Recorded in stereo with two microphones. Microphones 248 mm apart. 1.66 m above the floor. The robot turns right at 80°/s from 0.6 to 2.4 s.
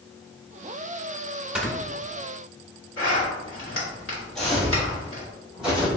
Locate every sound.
1.6 s snoring: 5° right (ahead or behind), 1.2 m; by 1.7 s 10° left (ahead or behind), 1.2 m
3.0 s a zipper: 55° left (ahead or behind), 1.7 m
4.3 s footsteps: centre (ahead or behind), 1.9 m; by 6.0 s 5° right (ahead or behind), 3.5 m